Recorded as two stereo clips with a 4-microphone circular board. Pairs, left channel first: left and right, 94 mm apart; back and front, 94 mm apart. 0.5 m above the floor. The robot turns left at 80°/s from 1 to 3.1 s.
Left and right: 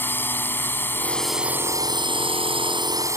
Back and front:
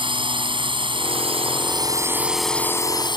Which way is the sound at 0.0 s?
25° left.